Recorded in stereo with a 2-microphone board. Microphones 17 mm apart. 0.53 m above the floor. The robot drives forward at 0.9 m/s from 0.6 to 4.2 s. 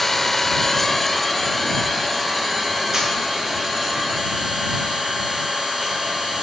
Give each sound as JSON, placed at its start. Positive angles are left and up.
{"t": 0.0, "sound": "an engine running", "side_deg": 10, "distance_m": 1.0}
{"t": 2.9, "sound": "a camera shutter", "side_deg": -25, "distance_m": 5.5}